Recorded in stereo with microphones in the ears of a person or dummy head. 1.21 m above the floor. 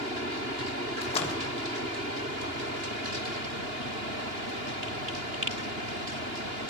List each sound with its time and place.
1.0 s a splash: 35° left (ahead or behind), 1.5 m